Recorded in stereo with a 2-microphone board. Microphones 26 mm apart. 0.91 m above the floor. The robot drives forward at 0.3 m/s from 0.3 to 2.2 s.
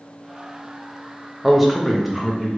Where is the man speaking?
Centre (ahead or behind), 0.6 m.